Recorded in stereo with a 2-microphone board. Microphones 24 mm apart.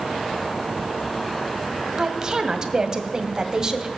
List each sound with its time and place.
2.0 s a woman speaking: 30° right (ahead or behind), 1.8 m